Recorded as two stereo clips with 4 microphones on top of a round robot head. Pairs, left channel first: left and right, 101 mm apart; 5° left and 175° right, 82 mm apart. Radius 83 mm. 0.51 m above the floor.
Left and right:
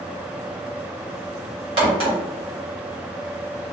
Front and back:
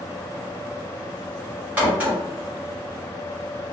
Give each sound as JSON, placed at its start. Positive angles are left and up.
{"t": 1.8, "sound": "a crack", "azimuth_deg": -105, "distance_m": 1.4}